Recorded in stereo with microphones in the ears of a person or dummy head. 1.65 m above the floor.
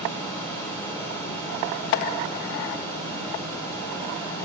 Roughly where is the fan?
Centre.